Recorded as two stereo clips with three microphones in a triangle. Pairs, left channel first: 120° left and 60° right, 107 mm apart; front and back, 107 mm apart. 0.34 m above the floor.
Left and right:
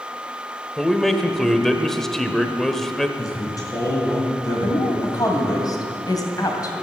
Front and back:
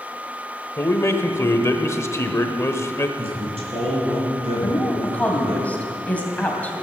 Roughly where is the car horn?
No car horn in this recording.